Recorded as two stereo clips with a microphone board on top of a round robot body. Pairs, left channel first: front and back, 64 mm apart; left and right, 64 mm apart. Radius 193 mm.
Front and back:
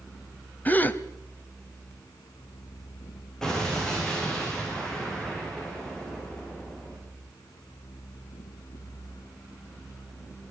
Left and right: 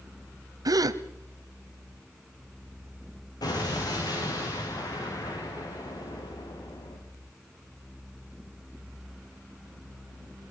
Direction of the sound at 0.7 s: 65° right.